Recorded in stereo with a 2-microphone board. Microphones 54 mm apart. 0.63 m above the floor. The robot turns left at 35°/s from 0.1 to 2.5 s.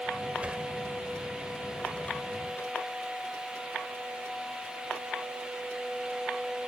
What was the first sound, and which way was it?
A sliding door, 25° right (ahead or behind).